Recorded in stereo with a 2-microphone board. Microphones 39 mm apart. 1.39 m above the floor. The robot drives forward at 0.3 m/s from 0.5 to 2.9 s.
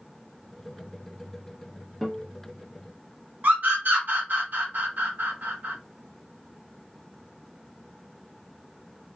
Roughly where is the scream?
Right.